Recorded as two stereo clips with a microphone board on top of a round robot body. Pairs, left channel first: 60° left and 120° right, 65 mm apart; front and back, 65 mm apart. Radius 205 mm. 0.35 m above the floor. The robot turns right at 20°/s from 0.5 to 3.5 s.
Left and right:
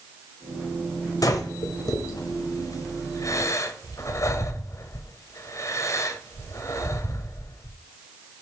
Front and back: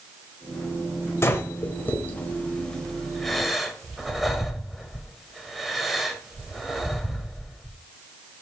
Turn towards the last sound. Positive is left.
turn(degrees=90)